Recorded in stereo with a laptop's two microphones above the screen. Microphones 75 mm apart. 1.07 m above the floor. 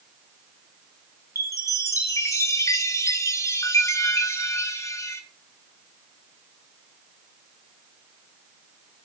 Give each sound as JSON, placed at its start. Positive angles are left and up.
{"t": 1.4, "sound": "a chime", "side_deg": 45, "distance_m": 1.2}